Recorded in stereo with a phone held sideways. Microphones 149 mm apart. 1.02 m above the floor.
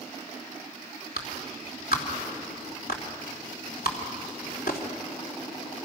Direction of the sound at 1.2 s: 85° left.